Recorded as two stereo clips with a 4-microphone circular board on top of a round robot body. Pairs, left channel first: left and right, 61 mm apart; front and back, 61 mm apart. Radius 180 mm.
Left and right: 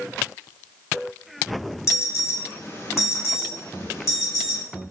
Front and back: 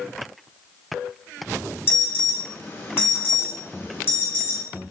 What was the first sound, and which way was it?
An alarm, 55° left.